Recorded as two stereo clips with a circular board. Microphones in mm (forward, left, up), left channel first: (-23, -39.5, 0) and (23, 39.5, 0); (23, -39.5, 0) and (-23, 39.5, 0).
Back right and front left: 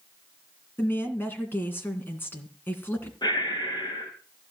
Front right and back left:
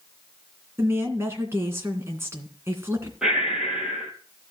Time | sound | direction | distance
0.8 | a woman speaking | 175° left | 2.5 m
3.2 | breathing | 155° right | 3.5 m